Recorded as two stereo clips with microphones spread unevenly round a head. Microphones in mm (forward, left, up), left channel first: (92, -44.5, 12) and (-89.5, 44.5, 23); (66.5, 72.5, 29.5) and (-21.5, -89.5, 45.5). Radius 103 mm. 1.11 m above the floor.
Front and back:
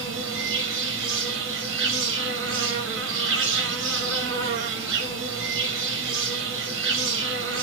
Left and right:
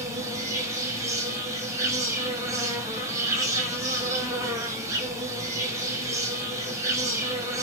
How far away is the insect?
About 0.9 m.